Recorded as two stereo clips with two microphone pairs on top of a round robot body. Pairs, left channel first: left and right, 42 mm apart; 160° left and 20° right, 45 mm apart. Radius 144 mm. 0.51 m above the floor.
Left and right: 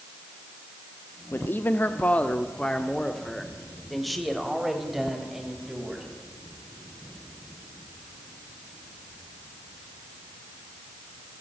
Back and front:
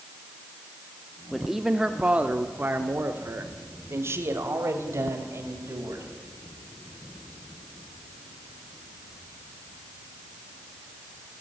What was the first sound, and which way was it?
A man speaking, 75° left.